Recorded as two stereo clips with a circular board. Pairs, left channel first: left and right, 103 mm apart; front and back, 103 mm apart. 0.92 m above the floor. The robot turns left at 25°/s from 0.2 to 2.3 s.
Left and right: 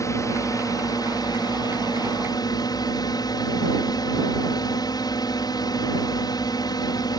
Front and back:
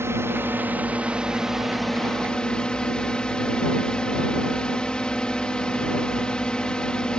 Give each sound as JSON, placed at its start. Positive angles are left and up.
{"t": 0.0, "sound": "a drone", "azimuth_deg": 130}